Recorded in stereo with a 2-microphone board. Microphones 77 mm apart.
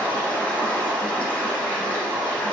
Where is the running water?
20° left (ahead or behind), 2 m.